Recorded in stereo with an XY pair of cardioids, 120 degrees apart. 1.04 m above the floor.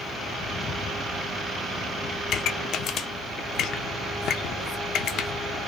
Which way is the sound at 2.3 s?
60° left.